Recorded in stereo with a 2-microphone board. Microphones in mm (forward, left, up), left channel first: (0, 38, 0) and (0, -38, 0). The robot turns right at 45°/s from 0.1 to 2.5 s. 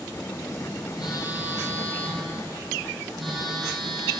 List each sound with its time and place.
1.0 s a phone buzzing: 110° left, 4 m; by 4.2 s straight behind, 4 m